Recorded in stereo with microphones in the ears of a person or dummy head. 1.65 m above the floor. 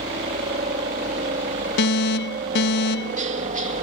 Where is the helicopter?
30° right (ahead or behind); by 3.8 s 35° right (ahead or behind).